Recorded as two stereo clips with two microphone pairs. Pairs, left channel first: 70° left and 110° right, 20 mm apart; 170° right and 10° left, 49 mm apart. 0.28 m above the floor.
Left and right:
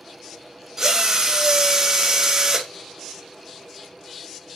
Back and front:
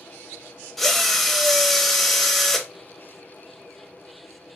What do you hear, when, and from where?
0.8 s a drill: 95° right, 0.6 m